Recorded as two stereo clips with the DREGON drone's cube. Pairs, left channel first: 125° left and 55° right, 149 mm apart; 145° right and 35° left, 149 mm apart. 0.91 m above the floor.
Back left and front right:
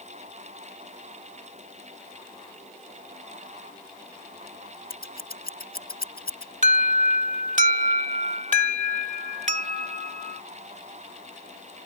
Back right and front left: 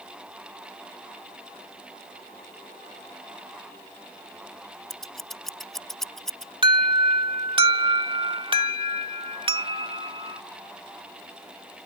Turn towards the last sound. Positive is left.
turn(degrees=-20)